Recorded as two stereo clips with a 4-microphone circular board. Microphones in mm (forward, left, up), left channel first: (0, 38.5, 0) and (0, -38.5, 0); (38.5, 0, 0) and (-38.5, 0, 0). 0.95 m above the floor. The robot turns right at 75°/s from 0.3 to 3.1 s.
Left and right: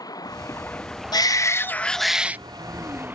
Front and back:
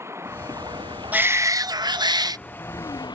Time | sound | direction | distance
0.0 | running water | 125° left | ?
1.1 | a shout | 110° left | ?